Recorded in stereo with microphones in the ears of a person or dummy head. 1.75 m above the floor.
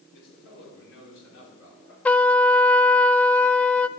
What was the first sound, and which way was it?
A man speaking, 80° left.